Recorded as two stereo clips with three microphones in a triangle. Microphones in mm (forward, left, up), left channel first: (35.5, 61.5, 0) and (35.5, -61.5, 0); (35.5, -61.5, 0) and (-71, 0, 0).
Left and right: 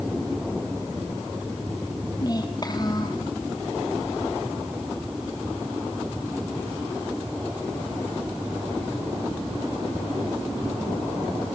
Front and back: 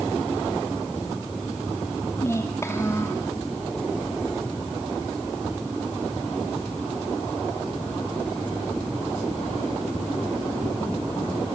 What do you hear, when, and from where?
2.2 s a child speaking: 35° left, 2.5 m